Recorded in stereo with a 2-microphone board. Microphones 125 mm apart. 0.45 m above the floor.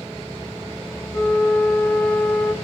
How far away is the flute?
About 1.7 m.